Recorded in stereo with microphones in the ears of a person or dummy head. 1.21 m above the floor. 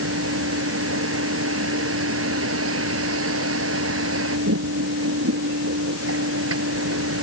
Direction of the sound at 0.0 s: 80° right.